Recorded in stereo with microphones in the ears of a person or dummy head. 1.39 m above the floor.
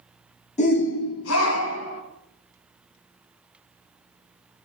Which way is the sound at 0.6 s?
35° left (ahead or behind).